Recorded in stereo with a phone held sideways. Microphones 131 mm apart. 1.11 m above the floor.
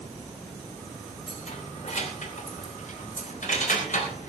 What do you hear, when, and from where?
1.3 s keys jangling: 60° left (ahead or behind), 2.5 m; by 4.3 s 80° left, 4.5 m